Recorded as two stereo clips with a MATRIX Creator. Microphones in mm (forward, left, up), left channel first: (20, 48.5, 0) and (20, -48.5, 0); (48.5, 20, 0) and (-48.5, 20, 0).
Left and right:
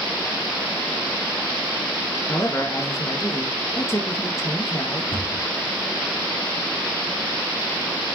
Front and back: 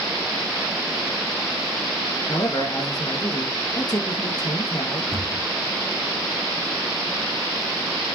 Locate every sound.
2.3 s a man speaking: 35° left, 3 m
5.1 s a cupboard door: 90° left, 4 m